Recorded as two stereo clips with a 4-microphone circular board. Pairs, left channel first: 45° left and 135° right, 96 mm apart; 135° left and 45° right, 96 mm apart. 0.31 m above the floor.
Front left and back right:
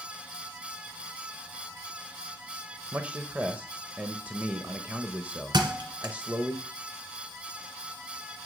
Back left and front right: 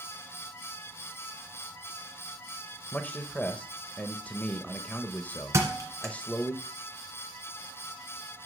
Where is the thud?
100° right, 1.7 m.